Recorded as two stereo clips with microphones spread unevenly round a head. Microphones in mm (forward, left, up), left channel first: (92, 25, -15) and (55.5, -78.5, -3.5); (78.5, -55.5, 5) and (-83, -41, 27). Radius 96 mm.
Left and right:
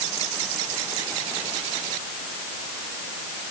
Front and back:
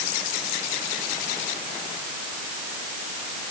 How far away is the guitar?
No guitar in this recording.